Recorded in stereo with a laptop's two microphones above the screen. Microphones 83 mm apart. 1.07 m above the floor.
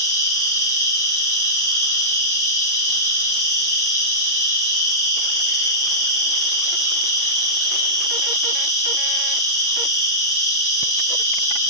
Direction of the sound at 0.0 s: 45° left (ahead or behind).